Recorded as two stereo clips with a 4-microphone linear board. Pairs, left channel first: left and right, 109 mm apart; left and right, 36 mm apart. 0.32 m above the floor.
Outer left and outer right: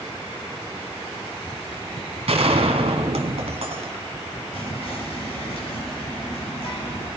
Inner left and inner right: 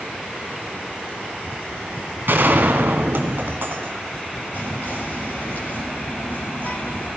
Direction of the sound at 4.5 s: 60° left (ahead or behind).